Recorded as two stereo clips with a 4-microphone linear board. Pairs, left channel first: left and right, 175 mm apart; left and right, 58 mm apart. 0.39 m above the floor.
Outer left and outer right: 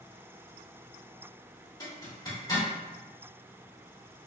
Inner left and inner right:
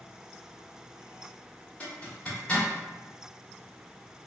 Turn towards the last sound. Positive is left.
turn(degrees=25)  # may be behind; listen again after turning